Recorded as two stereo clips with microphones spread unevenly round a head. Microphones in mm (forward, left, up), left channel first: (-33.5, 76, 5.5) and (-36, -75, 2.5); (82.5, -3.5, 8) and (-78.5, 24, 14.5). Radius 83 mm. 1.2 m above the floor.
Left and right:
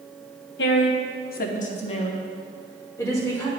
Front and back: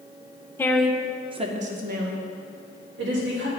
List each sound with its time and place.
0.6 s a woman speaking: 65° left, 0.8 m; by 3.5 s 160° left, 2 m